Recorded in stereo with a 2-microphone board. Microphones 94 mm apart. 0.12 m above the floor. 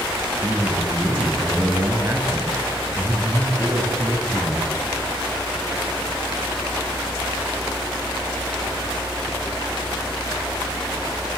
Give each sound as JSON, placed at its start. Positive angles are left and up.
{"t": 0.4, "sound": "a man speaking", "side_deg": -30, "distance_m": 8.5}